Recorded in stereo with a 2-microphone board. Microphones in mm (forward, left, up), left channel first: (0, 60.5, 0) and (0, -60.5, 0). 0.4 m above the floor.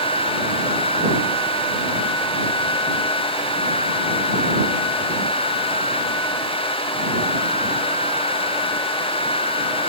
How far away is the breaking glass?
I don't hear breaking glass.